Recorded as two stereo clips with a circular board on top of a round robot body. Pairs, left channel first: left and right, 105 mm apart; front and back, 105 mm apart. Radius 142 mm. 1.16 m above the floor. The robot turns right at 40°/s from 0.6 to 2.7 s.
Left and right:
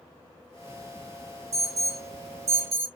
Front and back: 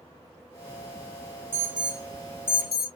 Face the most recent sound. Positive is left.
turn(degrees=-60)